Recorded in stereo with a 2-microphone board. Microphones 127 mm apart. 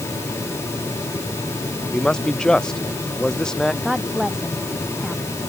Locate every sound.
1.9 s a man speaking: 5° left (ahead or behind)
3.8 s a woman speaking: 5° right (ahead or behind)